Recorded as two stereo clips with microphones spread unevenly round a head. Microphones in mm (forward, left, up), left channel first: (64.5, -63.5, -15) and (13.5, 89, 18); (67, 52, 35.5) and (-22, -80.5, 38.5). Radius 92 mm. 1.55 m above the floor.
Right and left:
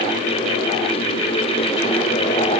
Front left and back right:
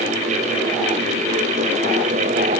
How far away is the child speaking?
I don't hear a child speaking.